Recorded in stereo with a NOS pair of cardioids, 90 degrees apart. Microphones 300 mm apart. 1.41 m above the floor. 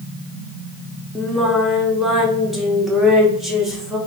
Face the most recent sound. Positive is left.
turn(degrees=0)